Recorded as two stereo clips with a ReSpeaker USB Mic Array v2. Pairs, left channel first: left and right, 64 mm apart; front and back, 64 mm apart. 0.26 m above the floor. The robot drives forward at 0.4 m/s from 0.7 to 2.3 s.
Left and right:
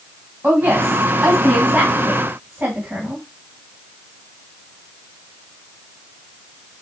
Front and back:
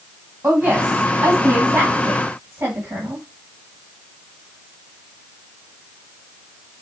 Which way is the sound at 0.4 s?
125° right.